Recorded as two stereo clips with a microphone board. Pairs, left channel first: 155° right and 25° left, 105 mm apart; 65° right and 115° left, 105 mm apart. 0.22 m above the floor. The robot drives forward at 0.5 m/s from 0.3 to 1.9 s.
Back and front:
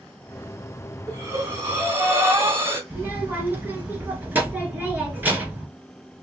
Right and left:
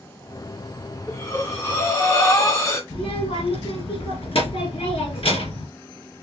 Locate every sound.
1.1 s breathing: 20° right, 2 m; by 2.8 s 25° right, 1.8 m
2.9 s a child speaking: 50° right, 2 m